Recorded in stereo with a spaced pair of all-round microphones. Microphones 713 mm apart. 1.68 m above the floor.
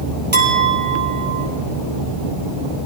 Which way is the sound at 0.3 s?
50° right (ahead or behind).